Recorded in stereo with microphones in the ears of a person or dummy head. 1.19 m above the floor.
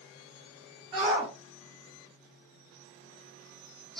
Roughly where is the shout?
Right.